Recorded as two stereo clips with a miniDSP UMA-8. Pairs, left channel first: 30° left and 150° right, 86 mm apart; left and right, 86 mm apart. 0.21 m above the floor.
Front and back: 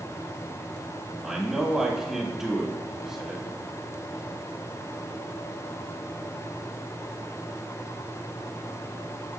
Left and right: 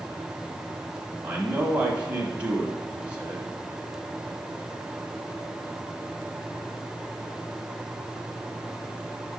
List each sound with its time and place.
1.2 s a man speaking: 80° right, 1.0 m